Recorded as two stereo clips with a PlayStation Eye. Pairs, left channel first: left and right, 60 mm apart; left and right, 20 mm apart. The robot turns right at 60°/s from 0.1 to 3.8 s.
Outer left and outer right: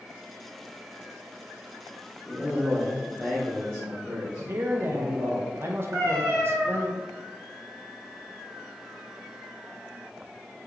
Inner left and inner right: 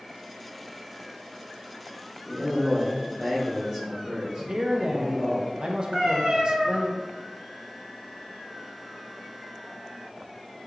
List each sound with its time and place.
2.2 s a man speaking: 130° left, 1.5 m; by 5.4 s 135° right, 1.5 m
4.4 s a man speaking: 40° right (ahead or behind), 0.5 m
5.9 s a cat meowing: 65° right (ahead or behind), 1.4 m